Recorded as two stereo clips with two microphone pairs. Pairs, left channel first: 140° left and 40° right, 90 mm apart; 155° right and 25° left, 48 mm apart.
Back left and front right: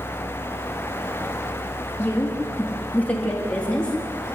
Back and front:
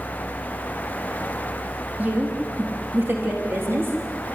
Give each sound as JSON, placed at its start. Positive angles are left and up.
{"t": 2.0, "sound": "a woman speaking", "azimuth_deg": 80, "distance_m": 3.0}